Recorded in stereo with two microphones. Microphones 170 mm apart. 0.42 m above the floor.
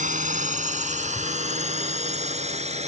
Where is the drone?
45° right (ahead or behind); by 2.9 s 40° right (ahead or behind).